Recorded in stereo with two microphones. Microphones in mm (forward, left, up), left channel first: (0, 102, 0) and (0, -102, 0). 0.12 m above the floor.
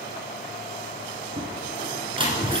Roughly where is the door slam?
Right.